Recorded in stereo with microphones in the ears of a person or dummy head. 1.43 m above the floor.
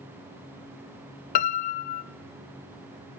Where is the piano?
45° left (ahead or behind), 0.8 m.